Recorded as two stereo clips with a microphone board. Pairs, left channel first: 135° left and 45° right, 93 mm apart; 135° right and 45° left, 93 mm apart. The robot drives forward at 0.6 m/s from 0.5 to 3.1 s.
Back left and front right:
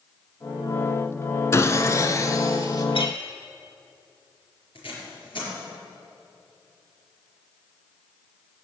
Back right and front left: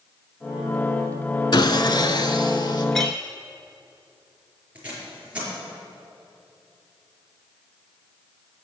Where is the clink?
140° left, 1.7 m.